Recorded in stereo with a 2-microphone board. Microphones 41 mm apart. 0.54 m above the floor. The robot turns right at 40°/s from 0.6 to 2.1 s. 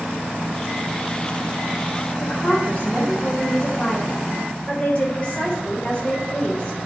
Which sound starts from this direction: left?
A woman speaking, at 2.2 s.